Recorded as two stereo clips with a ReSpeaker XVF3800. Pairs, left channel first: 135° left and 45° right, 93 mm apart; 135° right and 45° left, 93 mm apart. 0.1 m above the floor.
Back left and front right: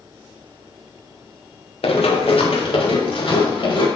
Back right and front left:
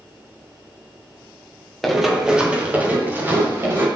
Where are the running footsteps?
135° left, 2.5 m; by 3.9 s 110° left, 5 m.